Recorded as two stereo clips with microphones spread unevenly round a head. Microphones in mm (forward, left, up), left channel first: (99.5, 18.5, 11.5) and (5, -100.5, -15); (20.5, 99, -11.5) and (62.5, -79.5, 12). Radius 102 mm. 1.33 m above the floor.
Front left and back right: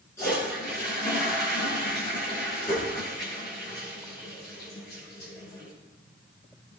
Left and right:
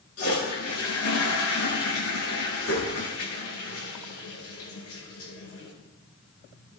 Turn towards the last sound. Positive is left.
turn(degrees=130)